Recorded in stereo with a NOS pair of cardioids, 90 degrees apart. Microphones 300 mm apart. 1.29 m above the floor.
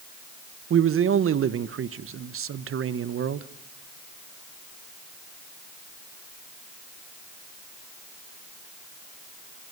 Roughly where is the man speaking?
Ahead right.